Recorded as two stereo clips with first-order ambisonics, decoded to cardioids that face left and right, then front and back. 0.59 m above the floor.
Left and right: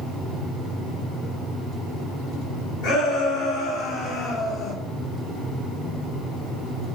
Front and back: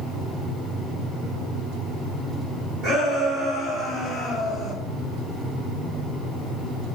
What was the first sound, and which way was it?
A shout, 125° left.